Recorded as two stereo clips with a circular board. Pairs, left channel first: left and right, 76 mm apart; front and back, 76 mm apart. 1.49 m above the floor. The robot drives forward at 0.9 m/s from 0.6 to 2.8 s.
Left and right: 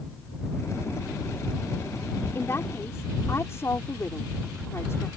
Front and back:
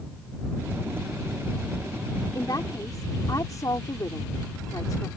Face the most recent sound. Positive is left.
turn(degrees=40)